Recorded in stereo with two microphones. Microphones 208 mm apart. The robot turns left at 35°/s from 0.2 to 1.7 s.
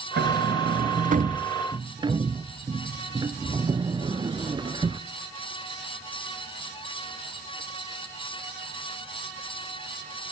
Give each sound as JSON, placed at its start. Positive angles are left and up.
{"t": 0.2, "sound": "a sliding door", "side_deg": -65, "distance_m": 0.6}